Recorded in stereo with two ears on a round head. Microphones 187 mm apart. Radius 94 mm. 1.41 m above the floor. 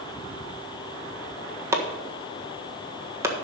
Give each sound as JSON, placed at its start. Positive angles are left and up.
{"t": 1.7, "sound": "chopping", "side_deg": -15, "distance_m": 1.5}